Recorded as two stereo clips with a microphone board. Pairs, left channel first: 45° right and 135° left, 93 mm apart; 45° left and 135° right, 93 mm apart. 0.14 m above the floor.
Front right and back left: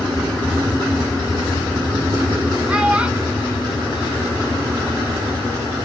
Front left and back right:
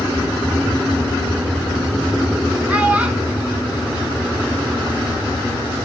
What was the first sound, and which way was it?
A child speaking, 175° right.